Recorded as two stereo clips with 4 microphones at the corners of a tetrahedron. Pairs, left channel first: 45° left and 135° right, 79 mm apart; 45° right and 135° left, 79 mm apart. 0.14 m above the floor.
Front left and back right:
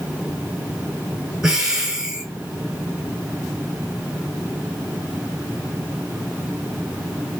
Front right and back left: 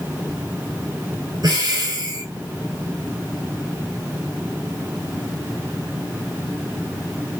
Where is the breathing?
150° left, 1.0 m.